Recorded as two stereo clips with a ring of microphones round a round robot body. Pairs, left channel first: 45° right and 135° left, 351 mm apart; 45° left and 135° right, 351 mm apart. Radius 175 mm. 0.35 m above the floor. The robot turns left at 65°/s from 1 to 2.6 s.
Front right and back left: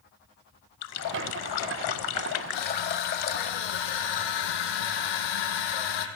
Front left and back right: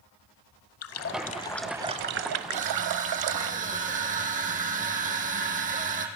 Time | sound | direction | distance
0.8 | a running tap | 5° right | 1.2 m
2.5 | crushing | 60° right | 4 m